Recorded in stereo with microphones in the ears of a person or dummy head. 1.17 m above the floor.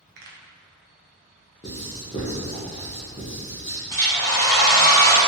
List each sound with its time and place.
0.2 s a pop: 50° right (ahead or behind), 0.6 m
1.6 s writing: 25° left (ahead or behind), 0.8 m
3.9 s a hair dryer: 10° left (ahead or behind), 1.4 m